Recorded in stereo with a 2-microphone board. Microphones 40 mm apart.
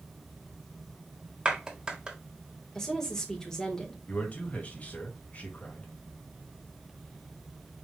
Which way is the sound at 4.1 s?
40° left (ahead or behind).